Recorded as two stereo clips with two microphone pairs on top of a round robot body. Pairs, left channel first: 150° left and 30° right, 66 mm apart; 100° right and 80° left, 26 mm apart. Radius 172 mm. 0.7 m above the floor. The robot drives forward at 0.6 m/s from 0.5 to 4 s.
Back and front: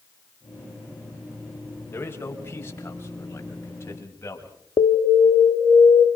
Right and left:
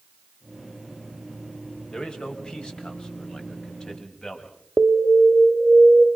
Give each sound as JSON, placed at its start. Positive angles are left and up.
{"t": 1.9, "sound": "a man speaking", "azimuth_deg": -155, "distance_m": 5.5}
{"t": 4.8, "sound": "an alarm", "azimuth_deg": 135, "distance_m": 1.0}